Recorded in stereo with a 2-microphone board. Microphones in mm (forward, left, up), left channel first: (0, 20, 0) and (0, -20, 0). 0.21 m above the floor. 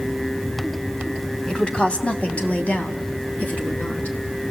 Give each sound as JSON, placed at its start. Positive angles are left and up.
{"t": 1.5, "sound": "a woman speaking", "side_deg": 20, "distance_m": 1.5}